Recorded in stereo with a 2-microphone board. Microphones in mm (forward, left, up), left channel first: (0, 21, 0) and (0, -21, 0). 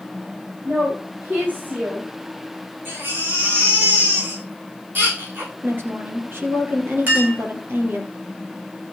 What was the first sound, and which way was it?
A woman speaking, 45° right (ahead or behind).